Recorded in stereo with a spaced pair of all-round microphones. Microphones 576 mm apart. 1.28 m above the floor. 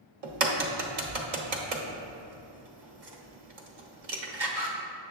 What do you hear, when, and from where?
0.2 s a crack: 70° right (ahead or behind), 0.8 m